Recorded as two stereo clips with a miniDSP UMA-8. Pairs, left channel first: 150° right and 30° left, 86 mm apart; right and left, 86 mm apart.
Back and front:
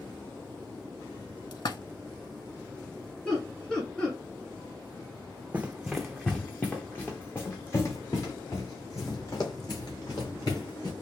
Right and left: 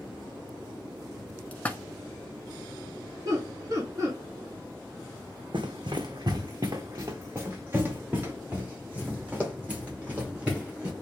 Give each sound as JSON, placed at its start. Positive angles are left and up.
{"t": 1.5, "sound": "a splash", "azimuth_deg": -160, "distance_m": 0.5}
{"t": 3.2, "sound": "laughter", "azimuth_deg": 135, "distance_m": 2.0}
{"t": 5.5, "sound": "running footsteps", "azimuth_deg": 100, "distance_m": 0.7}